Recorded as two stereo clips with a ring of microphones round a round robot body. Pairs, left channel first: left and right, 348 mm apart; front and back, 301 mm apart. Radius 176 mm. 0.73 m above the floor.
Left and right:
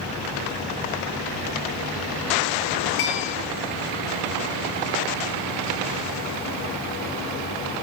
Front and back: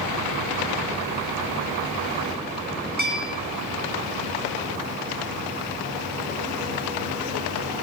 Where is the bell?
120° left, 4 m.